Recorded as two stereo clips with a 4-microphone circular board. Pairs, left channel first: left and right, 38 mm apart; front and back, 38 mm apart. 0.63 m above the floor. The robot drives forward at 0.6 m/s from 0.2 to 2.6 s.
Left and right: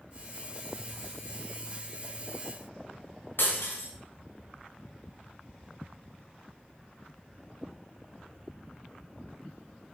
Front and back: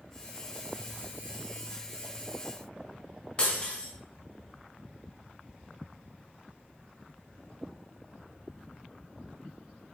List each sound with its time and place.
3.4 s breaking glass: 65° left, 2.0 m